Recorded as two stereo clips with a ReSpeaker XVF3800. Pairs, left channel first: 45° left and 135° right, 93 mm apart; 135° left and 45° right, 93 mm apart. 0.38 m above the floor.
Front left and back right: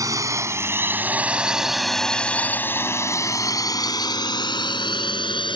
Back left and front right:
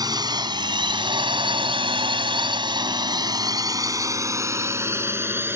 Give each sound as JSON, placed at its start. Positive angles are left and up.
{"t": 0.0, "sound": "a drone", "azimuth_deg": -85}